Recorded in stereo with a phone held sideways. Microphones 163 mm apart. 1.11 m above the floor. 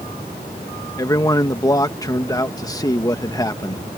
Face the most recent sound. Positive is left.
turn(degrees=20)  # may be behind; listen again after turning